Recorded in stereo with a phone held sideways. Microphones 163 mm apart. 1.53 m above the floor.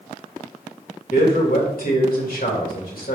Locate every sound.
1.1 s a man speaking: 70° left (ahead or behind), 2 m